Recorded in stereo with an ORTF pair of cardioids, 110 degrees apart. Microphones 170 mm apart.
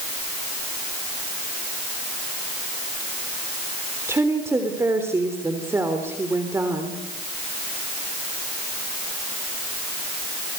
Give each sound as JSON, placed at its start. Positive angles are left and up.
{"t": 4.1, "sound": "a woman speaking", "azimuth_deg": -15, "distance_m": 3.5}